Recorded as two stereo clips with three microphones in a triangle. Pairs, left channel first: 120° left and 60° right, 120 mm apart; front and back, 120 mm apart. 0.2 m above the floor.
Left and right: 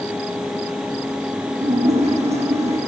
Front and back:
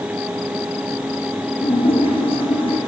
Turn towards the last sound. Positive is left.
turn(degrees=-40)